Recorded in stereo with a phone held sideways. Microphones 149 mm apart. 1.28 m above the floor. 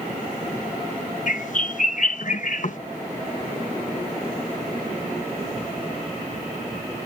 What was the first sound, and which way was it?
A bird, 60° left (ahead or behind).